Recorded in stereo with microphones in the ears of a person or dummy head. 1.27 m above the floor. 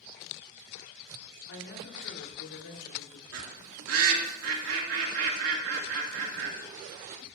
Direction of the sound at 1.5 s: 70° left (ahead or behind).